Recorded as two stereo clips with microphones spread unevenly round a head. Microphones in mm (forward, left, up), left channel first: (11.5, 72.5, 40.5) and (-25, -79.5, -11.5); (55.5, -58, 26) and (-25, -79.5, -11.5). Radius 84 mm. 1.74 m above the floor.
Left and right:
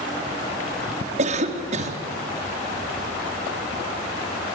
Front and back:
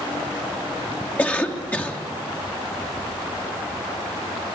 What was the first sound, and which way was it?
A cough, 55° right.